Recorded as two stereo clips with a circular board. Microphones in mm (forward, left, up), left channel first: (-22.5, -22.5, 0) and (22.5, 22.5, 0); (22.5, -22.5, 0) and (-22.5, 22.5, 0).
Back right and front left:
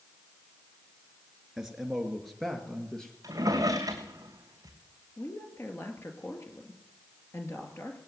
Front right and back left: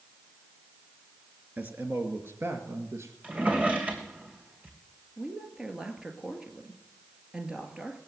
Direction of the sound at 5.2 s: 150° right.